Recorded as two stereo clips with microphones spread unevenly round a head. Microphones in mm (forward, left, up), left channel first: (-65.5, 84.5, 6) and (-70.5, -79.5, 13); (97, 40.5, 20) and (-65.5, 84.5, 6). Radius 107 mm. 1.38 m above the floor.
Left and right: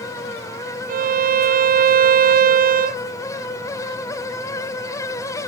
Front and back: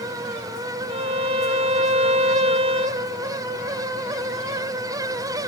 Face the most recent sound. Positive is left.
turn(degrees=-130)